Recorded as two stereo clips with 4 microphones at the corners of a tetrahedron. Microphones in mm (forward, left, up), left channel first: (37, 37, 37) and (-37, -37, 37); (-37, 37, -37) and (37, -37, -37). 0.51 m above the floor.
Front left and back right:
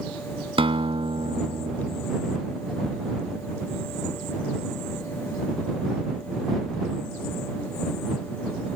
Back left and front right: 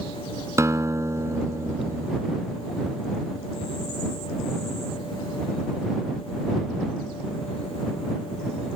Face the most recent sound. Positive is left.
turn(degrees=-105)